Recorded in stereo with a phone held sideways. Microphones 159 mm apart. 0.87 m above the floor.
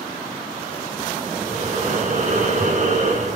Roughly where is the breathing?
Right.